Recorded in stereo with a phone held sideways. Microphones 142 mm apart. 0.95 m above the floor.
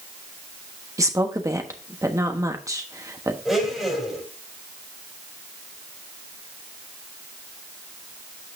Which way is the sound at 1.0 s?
20° right (ahead or behind).